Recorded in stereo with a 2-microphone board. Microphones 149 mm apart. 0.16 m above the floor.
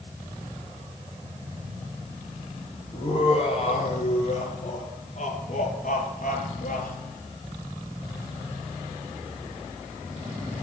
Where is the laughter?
40° left (ahead or behind), 4.5 m; by 6.9 s 65° left (ahead or behind), 3 m.